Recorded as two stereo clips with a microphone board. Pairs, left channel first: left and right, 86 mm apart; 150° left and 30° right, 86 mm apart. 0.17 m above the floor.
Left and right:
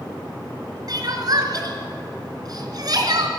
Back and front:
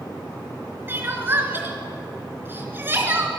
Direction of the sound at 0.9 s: 85° right.